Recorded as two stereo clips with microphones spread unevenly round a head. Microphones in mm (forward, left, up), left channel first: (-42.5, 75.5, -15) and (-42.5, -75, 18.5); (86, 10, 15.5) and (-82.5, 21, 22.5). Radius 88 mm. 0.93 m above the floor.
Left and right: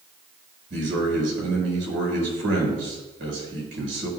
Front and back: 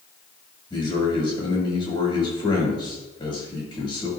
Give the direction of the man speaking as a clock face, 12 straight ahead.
2 o'clock.